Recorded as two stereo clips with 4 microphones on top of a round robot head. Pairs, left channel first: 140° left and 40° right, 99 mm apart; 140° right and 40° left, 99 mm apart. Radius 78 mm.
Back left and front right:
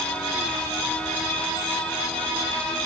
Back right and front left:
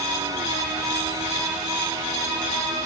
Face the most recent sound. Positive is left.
No sound to turn to.